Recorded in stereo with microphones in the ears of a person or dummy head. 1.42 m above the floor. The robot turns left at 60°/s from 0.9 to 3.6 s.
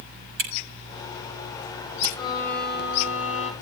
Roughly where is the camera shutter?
Right.